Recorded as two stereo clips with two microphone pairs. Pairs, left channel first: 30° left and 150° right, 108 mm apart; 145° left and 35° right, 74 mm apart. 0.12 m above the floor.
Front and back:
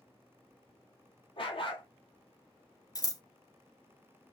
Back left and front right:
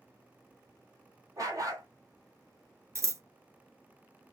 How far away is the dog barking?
About 1.0 m.